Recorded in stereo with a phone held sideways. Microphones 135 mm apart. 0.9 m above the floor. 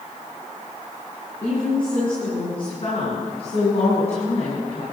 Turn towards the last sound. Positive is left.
turn(degrees=55)  # may be behind; listen again after turning